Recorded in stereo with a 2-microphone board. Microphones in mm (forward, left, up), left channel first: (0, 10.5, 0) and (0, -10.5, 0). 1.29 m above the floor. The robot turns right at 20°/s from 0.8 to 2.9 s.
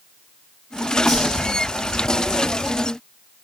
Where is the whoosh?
15° left (ahead or behind), 3 m; by 1.4 s 10° left (ahead or behind), 3 m.